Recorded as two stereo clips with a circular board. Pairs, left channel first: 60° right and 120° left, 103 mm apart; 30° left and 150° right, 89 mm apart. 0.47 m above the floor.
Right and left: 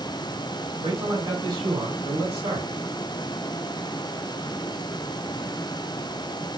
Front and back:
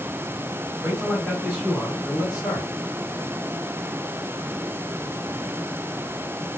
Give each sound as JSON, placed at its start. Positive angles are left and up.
{"t": 0.8, "sound": "a man speaking", "azimuth_deg": 135, "distance_m": 3.0}